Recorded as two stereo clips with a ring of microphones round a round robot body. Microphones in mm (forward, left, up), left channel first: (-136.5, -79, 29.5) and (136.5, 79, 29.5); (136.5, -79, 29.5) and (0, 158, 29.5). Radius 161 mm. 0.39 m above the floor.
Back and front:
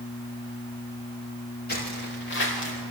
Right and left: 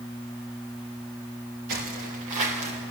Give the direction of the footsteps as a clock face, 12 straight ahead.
7 o'clock.